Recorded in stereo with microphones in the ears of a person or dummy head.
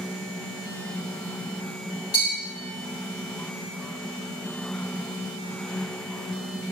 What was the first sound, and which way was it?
A bell, 20° left (ahead or behind).